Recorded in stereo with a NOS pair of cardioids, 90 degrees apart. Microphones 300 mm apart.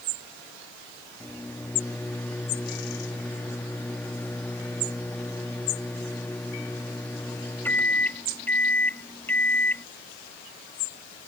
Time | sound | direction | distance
1.2 | a microwave | 5° left | ?